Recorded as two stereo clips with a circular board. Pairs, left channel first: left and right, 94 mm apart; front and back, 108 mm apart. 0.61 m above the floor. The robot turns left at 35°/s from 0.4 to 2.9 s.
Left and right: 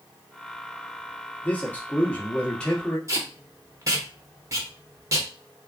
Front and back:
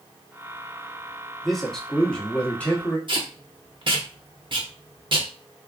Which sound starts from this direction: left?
A man speaking, at 1.4 s.